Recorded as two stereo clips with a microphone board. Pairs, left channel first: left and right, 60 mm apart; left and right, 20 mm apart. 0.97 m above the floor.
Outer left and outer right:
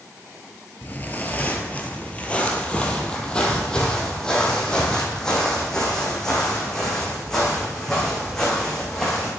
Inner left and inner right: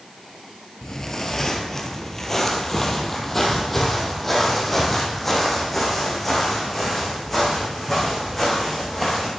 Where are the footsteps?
30° left (ahead or behind), 1.1 m; by 9.3 s 5° left (ahead or behind), 5 m.